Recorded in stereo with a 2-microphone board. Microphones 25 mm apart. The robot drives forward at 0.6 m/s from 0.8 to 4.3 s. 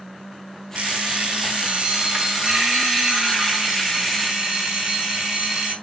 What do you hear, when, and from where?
0.8 s an alarm clock: 50° right (ahead or behind), 1.5 m; by 5.7 s 20° right (ahead or behind), 3 m